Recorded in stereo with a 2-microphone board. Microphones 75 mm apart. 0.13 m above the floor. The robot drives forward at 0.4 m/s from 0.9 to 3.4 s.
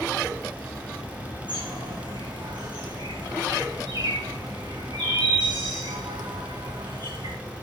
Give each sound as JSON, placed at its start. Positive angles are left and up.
{"t": 1.5, "sound": "a bird", "side_deg": -80, "distance_m": 6.5}